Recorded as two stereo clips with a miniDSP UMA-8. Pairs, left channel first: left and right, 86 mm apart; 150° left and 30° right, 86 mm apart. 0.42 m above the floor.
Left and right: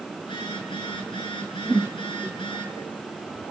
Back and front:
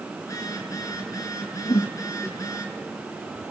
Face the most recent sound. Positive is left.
turn(degrees=170)